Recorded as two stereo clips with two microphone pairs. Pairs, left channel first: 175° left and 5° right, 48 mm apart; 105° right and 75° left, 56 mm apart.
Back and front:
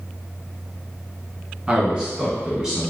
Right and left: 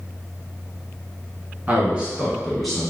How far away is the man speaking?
About 1.3 m.